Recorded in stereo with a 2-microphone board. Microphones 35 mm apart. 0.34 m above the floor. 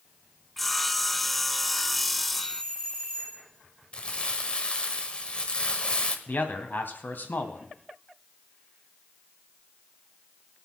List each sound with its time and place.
0.6 s sawing: 5° left (ahead or behind), 0.5 m
2.3 s a doorbell: 20° left (ahead or behind), 4 m
3.9 s crumpling: 30° left (ahead or behind), 1.1 m
6.3 s a man speaking: 65° left (ahead or behind), 1.9 m